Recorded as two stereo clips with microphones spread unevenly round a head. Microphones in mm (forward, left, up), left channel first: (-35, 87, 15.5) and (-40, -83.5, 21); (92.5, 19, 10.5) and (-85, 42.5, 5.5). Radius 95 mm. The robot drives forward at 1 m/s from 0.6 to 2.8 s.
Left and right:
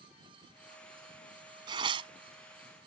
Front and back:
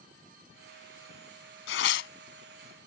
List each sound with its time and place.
1.7 s tearing paper: 25° right; by 2.1 s 30° right